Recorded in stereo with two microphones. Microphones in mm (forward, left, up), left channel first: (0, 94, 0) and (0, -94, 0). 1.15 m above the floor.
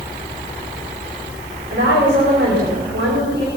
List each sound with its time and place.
1.7 s a woman speaking: 90° right, 4 m